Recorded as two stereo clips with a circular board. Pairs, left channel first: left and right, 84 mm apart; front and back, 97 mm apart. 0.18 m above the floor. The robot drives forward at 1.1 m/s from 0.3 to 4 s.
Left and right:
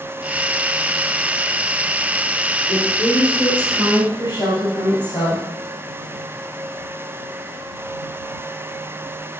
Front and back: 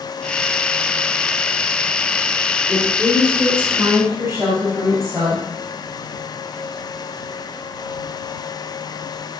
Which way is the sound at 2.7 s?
95° left.